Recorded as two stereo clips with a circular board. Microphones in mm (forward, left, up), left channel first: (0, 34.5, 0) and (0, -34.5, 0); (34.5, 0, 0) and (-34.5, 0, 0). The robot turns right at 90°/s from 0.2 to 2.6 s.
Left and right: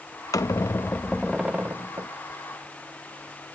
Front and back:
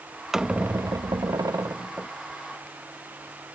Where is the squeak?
95° left; by 2.1 s 105° right.